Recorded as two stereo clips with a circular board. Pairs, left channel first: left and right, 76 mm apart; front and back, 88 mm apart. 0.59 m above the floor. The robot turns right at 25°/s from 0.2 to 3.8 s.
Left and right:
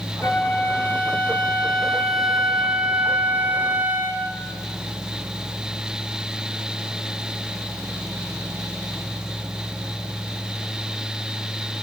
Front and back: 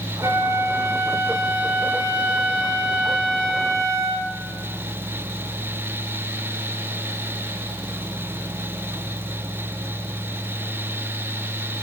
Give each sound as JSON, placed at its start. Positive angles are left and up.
{"t": 0.2, "sound": "a flute", "azimuth_deg": 130, "distance_m": 0.7}